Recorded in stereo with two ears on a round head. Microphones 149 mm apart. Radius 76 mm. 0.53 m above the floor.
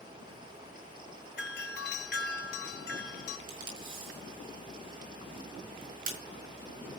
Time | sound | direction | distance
1.4 | a doorbell | 70° left (ahead or behind) | 3 m
3.5 | tape being pulled | 55° right (ahead or behind) | 5.5 m